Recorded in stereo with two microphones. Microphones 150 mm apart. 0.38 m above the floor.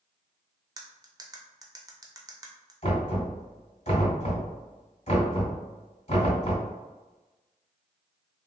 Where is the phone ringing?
I don't hear a phone ringing.